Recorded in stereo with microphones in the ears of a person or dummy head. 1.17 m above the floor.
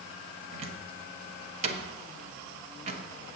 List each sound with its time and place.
0.5 s a cupboard door: 40° right (ahead or behind), 1.0 m